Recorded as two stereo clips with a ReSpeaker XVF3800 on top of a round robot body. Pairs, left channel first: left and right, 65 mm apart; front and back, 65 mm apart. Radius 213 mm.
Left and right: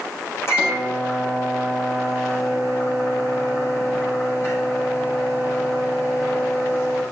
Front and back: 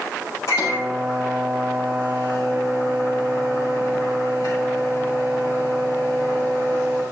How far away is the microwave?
About 5.5 m.